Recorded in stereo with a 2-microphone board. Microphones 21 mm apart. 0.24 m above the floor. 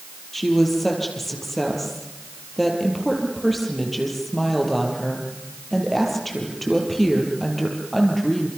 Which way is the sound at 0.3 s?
10° left (ahead or behind).